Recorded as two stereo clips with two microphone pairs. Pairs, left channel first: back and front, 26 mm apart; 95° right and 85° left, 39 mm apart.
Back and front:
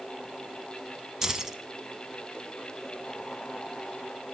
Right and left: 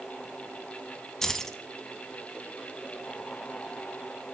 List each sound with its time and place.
1.2 s keys jangling: 35° right, 0.8 m